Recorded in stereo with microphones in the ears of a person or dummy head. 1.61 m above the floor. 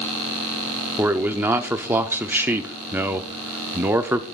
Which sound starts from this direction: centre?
A man speaking, at 1.0 s.